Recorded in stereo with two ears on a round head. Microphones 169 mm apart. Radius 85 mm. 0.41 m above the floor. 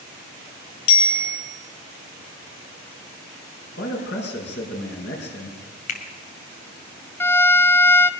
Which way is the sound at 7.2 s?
10° left (ahead or behind).